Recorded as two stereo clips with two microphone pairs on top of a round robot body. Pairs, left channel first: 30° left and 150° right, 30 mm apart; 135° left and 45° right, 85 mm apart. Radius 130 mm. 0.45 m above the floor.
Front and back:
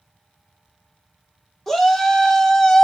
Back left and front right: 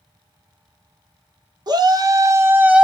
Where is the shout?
50° right, 1.0 m; by 2.9 s 5° left, 0.7 m.